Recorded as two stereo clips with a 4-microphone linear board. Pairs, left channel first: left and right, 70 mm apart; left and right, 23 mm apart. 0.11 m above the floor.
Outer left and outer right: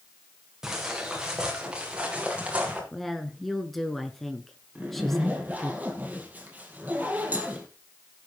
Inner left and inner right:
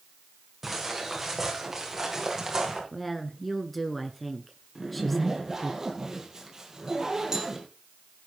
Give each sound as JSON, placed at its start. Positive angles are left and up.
{"t": 0.6, "sound": "footsteps", "side_deg": -10, "distance_m": 5.0}
{"t": 2.9, "sound": "a woman speaking", "side_deg": 5, "distance_m": 1.1}
{"t": 4.8, "sound": "a zipper", "side_deg": -25, "distance_m": 2.5}